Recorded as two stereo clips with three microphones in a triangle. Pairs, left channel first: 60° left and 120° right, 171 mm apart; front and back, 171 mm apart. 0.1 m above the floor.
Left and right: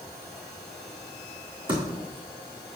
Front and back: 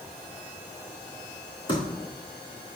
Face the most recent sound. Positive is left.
turn(degrees=-60)